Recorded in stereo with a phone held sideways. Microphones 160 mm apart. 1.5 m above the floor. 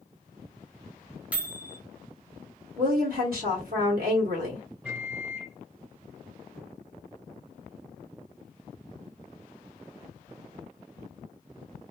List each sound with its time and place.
1.3 s a microwave: 10° right (ahead or behind), 0.8 m
2.8 s a woman speaking: 70° right (ahead or behind), 0.9 m
4.8 s a microwave: 10° right (ahead or behind), 1.1 m